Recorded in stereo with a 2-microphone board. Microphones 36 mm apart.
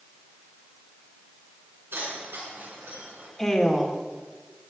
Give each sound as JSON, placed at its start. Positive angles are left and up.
{"t": 1.9, "sound": "keys jangling", "side_deg": -90, "distance_m": 7.5}
{"t": 3.4, "sound": "a woman speaking", "side_deg": 10, "distance_m": 2.5}